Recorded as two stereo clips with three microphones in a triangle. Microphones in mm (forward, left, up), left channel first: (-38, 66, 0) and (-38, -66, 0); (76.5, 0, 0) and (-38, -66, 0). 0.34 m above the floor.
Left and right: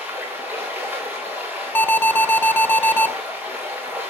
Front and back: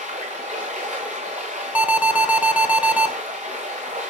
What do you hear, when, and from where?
0.0 s running water: 170° right, 6 m
1.8 s an alarm: 145° left, 1.3 m